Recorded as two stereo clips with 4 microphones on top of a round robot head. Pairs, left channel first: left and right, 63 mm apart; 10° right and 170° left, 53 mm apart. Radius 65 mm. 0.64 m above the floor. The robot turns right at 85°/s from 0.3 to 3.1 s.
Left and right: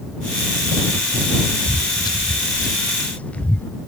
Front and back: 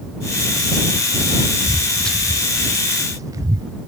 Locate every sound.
1.6 s footsteps: 30° left; by 3.7 s 160° left